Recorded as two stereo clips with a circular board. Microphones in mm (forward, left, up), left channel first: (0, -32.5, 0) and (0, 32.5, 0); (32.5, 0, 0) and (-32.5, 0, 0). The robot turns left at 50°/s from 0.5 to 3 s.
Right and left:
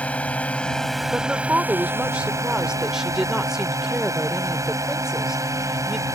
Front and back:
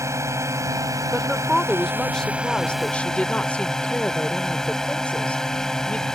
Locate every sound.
0.0 s a drone: 155° right; by 6.1 s 80° left
1.1 s a woman speaking: 115° left; by 6.0 s 20° left